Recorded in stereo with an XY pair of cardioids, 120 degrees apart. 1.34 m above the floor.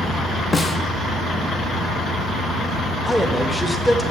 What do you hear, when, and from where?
0.5 s a snare drum: 20° left, 1.1 m
3.0 s a man speaking: 5° left, 1.4 m